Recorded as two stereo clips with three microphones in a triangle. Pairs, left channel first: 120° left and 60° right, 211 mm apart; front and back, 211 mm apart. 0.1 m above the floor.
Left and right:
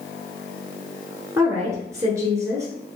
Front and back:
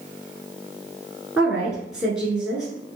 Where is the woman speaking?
100° right, 1.2 m.